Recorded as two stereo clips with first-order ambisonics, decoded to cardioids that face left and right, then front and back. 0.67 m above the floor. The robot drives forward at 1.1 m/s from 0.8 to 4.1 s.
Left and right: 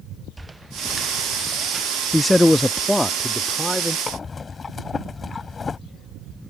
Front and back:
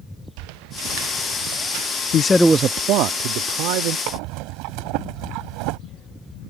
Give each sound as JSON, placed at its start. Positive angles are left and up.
{"t": 0.4, "sound": "footsteps", "azimuth_deg": -170}
{"t": 2.1, "sound": "a man speaking", "azimuth_deg": 5}
{"t": 4.1, "sound": "breathing", "azimuth_deg": 165}